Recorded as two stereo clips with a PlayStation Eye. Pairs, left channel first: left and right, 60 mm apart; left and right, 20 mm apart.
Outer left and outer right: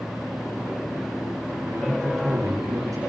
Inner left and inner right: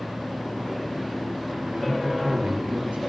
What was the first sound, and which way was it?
A man speaking, 80° right.